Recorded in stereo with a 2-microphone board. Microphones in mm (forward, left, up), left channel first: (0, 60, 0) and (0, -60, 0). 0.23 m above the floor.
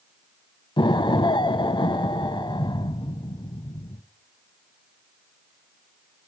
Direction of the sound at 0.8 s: 45° left (ahead or behind).